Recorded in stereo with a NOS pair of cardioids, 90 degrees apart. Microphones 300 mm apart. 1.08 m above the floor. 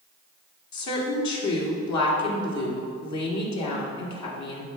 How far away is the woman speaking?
About 1.8 m.